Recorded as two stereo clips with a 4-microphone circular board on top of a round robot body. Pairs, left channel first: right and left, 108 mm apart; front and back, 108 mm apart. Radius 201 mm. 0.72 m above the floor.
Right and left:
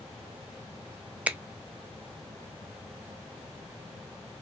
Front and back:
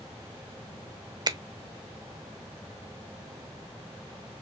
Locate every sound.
1.3 s a finger snap: 160° left, 0.8 m